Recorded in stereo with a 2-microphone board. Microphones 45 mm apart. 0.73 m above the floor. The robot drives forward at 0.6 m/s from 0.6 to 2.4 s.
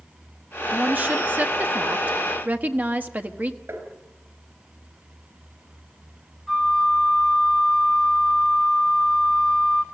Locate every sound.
0.7 s a woman speaking: 35° right (ahead or behind), 1.3 m
3.7 s tapping: 60° right (ahead or behind), 5 m
6.5 s a flute: centre (ahead or behind), 2.5 m